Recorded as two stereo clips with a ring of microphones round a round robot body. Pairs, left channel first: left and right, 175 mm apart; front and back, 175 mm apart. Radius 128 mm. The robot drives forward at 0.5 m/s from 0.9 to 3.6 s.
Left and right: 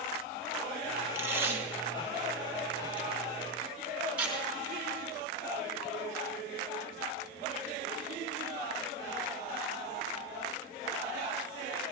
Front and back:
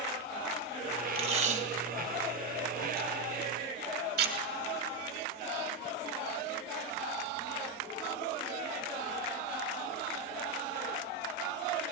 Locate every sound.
1.1 s tape being pulled: 155° right, 1.1 m; by 4.3 s 170° right, 2 m